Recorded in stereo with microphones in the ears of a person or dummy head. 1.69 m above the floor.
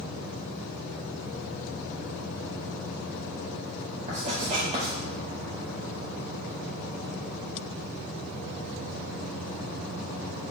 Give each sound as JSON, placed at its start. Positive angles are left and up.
{"t": 4.1, "sound": "writing", "side_deg": -30, "distance_m": 0.7}